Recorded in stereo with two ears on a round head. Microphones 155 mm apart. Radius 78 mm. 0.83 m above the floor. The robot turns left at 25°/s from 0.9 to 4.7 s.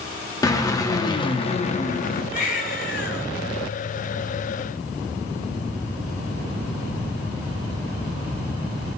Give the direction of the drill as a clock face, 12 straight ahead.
7 o'clock.